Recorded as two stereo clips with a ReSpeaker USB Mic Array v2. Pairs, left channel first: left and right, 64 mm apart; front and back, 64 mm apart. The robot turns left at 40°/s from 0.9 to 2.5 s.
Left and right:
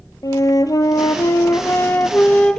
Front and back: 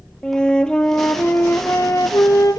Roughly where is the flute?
Left.